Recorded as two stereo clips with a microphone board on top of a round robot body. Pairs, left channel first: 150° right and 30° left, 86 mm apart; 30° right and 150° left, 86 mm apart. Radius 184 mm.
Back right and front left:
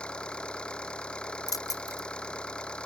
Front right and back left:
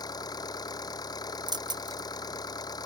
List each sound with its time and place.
0.0 s an engine running: 70° right
1.5 s keys jangling: 170° left